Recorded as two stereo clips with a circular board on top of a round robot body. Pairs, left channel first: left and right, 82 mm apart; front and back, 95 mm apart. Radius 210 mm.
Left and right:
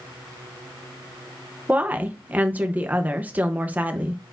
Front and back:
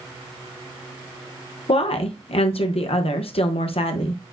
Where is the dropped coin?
No dropped coin in this recording.